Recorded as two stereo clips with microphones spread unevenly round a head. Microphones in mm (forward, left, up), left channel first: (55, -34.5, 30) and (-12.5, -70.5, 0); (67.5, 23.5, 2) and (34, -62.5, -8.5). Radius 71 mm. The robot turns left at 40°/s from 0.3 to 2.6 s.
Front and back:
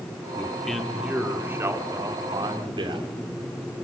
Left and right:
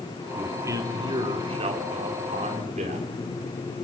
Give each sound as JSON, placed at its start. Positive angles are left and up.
{"t": 0.4, "sound": "a man speaking", "azimuth_deg": -45, "distance_m": 3.0}